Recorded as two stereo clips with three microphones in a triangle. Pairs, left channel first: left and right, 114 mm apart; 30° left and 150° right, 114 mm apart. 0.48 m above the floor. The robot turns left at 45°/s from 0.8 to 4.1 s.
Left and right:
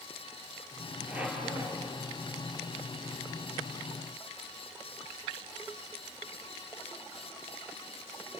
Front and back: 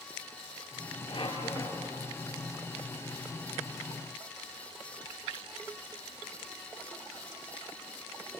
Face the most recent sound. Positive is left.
turn(degrees=-140)